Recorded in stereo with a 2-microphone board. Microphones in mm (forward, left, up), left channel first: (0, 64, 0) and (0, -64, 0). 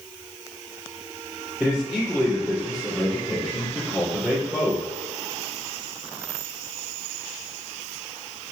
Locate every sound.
1.6 s a man speaking: 5° right (ahead or behind), 4 m